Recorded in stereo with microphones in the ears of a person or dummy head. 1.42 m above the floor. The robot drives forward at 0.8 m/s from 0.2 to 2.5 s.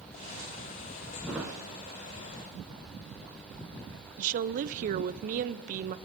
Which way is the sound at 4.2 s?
45° right (ahead or behind).